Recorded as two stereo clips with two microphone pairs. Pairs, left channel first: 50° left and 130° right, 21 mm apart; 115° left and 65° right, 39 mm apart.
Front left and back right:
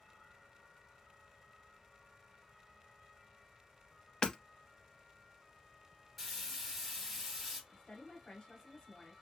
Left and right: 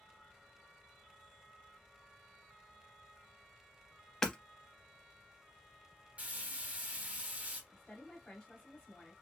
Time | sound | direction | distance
4.2 | hammering | 40° left | 0.6 m
6.2 | frying | 40° right | 1.3 m
7.7 | a woman speaking | 55° left | 1.6 m